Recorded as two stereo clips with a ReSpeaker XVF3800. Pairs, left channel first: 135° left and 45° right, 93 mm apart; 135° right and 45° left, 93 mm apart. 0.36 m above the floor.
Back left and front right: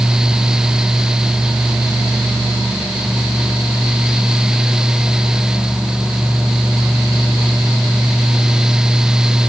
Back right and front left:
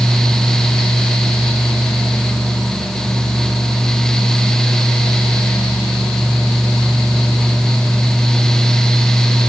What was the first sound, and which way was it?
Only background noise.